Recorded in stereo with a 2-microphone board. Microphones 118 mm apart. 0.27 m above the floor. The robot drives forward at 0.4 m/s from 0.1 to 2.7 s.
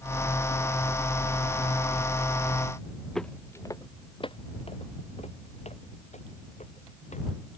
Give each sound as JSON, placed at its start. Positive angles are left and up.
{"t": 3.1, "sound": "footsteps", "side_deg": 5}